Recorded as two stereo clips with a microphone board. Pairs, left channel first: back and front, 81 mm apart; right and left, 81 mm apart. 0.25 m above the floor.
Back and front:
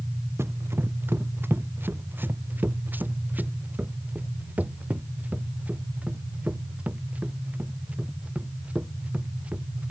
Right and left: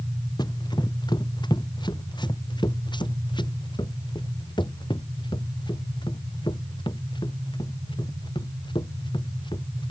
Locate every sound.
0.4 s running footsteps: 60° right; by 9.9 s 75° right